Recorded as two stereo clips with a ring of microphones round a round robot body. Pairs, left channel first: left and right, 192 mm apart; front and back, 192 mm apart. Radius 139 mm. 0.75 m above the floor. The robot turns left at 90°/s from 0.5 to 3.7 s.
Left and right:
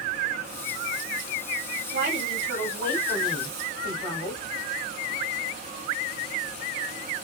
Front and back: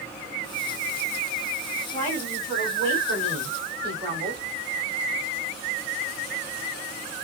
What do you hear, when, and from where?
1.9 s a woman speaking: 55° right, 3.5 m; by 4.4 s 145° left, 3.5 m